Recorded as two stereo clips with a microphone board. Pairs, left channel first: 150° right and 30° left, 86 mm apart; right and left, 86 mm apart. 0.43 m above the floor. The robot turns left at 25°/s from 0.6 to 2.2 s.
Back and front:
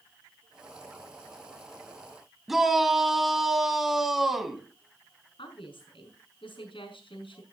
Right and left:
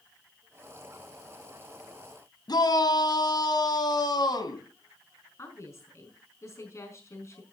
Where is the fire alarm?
No fire alarm in this recording.